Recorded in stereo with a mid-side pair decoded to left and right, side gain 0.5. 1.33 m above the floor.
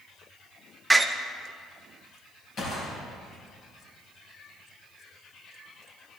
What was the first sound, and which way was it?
A door slam, 10° right.